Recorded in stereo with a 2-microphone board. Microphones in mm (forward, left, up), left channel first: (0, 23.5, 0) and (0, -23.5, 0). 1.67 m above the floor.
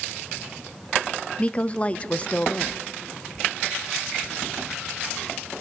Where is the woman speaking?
25° left (ahead or behind), 0.7 m.